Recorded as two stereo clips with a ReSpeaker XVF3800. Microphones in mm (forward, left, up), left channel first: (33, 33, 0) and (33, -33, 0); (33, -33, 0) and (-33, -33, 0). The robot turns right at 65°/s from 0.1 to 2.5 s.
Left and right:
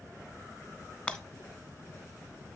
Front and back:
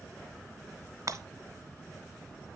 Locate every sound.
1.1 s breaking glass: 160° left, 0.7 m; by 1.2 s 170° left, 0.7 m